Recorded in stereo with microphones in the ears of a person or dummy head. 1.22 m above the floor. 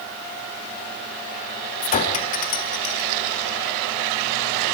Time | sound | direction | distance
1.8 | a clink | 35° left (ahead or behind) | 1.4 m